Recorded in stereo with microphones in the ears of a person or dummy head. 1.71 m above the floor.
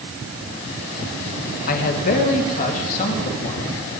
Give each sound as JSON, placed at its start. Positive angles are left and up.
{"t": 1.7, "sound": "a man speaking", "side_deg": 50, "distance_m": 2.5}